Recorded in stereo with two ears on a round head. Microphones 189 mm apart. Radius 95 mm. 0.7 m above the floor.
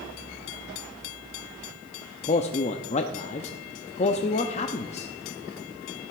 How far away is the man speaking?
About 0.6 m.